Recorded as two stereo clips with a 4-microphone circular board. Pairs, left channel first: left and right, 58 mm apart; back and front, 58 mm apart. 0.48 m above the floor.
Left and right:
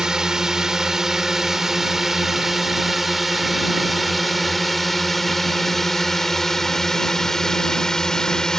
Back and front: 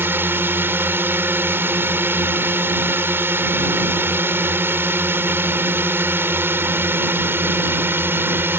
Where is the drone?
15° right; by 8.6 s 15° left.